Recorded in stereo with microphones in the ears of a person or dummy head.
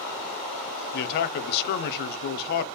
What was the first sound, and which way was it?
A man speaking, 55° left (ahead or behind).